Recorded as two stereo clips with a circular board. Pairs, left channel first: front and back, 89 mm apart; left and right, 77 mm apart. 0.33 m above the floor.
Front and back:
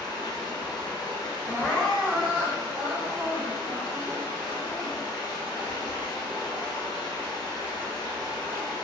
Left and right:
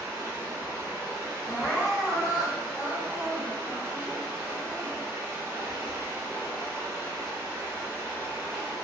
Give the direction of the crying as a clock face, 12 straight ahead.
5 o'clock.